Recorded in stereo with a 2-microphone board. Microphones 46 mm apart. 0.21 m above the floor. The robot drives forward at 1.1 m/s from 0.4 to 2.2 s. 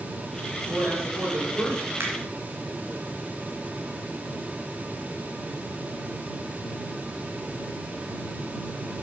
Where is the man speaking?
60° right (ahead or behind), 4 m; by 1.9 s 70° right (ahead or behind), 3.5 m.